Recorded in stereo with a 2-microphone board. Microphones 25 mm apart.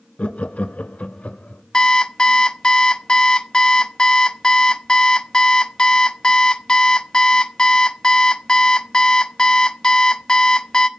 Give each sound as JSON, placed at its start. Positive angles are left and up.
{"t": 0.2, "sound": "laughter", "side_deg": 55, "distance_m": 1.0}
{"t": 1.7, "sound": "an alarm clock", "side_deg": 30, "distance_m": 0.8}